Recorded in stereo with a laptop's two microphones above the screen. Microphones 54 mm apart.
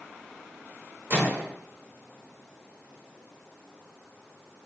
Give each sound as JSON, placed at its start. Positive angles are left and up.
{"t": 1.1, "sound": "a microwave", "side_deg": -40, "distance_m": 0.8}